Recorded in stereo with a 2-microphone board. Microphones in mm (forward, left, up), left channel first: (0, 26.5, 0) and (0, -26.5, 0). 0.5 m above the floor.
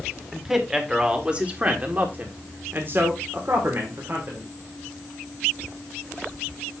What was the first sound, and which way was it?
A man speaking, 5° right (ahead or behind).